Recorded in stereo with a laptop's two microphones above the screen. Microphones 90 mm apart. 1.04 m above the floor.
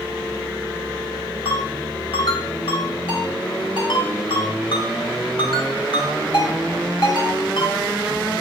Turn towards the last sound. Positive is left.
turn(degrees=75)  # may be behind; listen again after turning